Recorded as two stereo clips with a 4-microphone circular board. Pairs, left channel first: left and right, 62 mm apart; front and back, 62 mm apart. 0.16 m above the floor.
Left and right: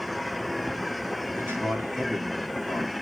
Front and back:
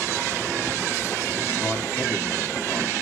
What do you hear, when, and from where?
1.4 s a man speaking: 45° right, 2.5 m